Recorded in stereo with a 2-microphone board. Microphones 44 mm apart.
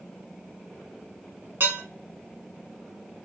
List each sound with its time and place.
1.6 s dishes clattering: 70° right (ahead or behind), 1.2 m